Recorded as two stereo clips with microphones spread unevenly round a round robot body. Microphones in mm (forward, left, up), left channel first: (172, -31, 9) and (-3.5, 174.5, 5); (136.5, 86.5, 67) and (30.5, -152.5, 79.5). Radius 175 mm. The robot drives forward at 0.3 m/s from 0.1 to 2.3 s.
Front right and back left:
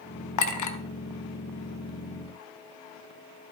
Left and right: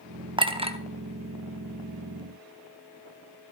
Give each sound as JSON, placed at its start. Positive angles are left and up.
{"t": 0.4, "sound": "a clink", "azimuth_deg": -40, "distance_m": 1.3}